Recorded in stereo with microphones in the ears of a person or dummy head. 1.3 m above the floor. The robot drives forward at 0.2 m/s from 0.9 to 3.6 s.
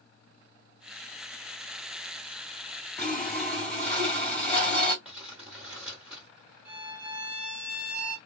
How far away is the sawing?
About 1.5 m.